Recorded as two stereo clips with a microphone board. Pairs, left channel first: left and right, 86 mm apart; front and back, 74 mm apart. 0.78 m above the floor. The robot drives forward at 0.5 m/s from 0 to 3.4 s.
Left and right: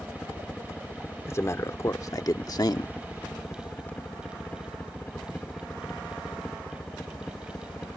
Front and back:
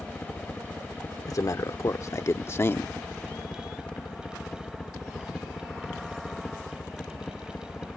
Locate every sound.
0.0 s a helicopter: 35° left; by 8.0 s 50° left
1.3 s a man speaking: 35° left; by 2.9 s 60° left